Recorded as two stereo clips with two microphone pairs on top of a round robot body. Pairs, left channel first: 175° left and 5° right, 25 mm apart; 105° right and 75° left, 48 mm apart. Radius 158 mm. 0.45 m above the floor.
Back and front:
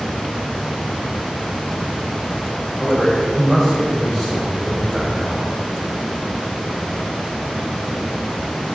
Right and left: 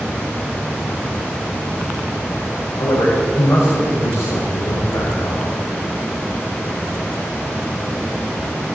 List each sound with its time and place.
2.8 s a man speaking: 90° right, 3 m